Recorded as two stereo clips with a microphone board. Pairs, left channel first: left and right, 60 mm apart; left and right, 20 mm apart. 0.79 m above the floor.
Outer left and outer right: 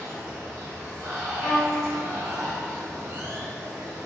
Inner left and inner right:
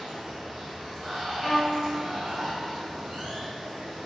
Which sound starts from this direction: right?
Running water, at 0.0 s.